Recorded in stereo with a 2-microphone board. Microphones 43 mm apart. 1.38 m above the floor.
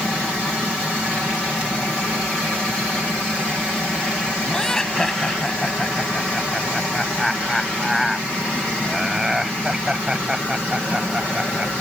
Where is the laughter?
10° left (ahead or behind); by 11.8 s 25° right (ahead or behind).